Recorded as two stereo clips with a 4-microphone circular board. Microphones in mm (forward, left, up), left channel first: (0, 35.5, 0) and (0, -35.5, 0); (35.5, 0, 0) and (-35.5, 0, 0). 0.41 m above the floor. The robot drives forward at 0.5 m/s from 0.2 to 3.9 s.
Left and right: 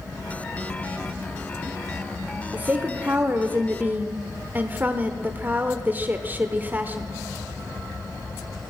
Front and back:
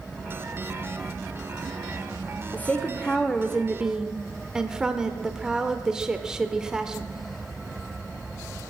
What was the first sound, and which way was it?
A woman speaking, 40° right.